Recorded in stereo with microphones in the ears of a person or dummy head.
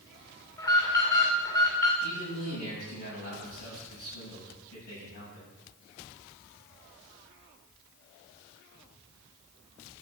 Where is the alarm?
20° left (ahead or behind), 2.5 m.